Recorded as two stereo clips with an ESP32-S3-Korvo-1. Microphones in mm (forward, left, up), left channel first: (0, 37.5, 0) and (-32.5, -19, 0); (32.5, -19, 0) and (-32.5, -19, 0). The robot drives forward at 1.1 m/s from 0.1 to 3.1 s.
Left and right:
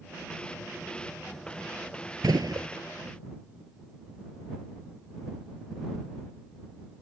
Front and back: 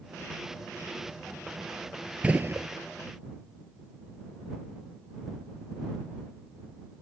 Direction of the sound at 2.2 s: 110° right.